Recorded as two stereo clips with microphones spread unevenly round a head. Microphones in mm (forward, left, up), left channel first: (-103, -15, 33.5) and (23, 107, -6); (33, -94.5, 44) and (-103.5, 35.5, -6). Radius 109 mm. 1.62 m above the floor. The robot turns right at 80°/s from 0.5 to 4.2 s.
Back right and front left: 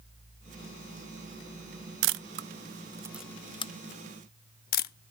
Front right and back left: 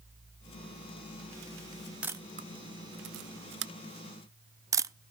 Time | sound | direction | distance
2.0 | a camera shutter | 45° left | 0.5 m